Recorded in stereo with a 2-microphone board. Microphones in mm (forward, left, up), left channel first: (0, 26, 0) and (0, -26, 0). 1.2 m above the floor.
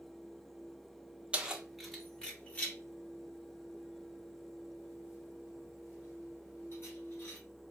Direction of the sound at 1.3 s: 20° right (ahead or behind).